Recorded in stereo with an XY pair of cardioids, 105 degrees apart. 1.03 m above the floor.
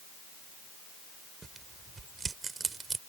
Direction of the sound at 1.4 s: 35° right.